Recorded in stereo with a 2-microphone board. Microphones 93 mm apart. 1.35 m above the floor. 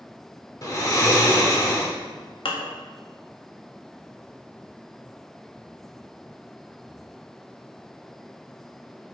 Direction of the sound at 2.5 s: 65° left (ahead or behind).